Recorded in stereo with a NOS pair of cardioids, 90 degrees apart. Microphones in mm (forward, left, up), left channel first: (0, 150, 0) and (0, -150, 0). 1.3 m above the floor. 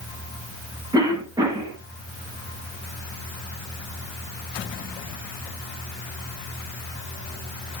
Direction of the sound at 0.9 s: 10° right.